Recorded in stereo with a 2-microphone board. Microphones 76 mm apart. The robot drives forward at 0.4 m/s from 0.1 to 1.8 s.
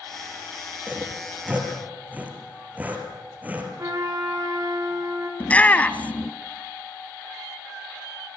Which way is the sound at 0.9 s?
20° right (ahead or behind).